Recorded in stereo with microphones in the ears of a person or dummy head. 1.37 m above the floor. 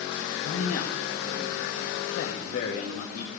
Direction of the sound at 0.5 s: 40° left (ahead or behind).